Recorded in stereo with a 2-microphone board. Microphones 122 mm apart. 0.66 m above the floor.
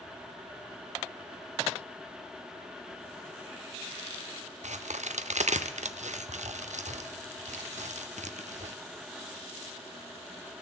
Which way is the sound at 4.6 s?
70° right (ahead or behind).